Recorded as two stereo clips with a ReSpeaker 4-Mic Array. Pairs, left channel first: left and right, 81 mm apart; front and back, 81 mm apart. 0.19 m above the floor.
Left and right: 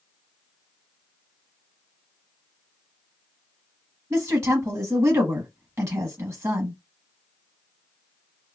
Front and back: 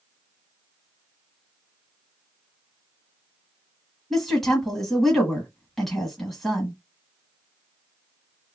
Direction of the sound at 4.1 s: 85° right.